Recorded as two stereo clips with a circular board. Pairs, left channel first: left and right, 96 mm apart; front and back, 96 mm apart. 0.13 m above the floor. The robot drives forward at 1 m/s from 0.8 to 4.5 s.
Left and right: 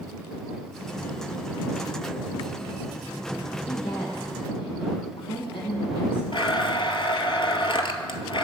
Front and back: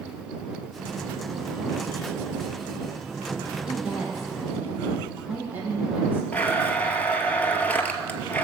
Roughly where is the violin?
No violin in this recording.